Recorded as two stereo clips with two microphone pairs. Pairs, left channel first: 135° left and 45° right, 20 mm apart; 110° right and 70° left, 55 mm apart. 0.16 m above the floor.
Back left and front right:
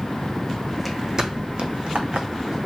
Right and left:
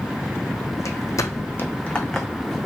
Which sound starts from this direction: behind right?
Footsteps, at 0.8 s.